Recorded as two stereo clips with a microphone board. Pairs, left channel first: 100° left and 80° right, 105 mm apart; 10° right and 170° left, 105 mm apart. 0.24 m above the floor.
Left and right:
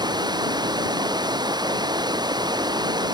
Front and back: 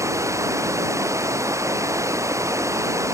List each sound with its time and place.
0.0 s running water: 130° right